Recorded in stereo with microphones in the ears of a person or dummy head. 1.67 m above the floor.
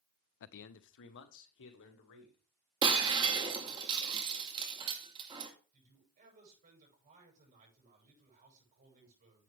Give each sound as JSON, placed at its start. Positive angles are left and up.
{"t": 0.4, "sound": "a man speaking", "side_deg": 60, "distance_m": 0.6}
{"t": 2.8, "sound": "breaking glass", "side_deg": -25, "distance_m": 1.8}
{"t": 5.7, "sound": "a man speaking", "side_deg": -40, "distance_m": 8.0}